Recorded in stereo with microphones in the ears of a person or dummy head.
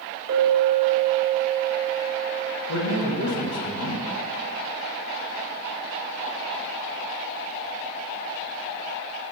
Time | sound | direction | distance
0.3 | a clink | 50° right (ahead or behind) | 1.3 m
2.7 | a man speaking | 80° left | 1.7 m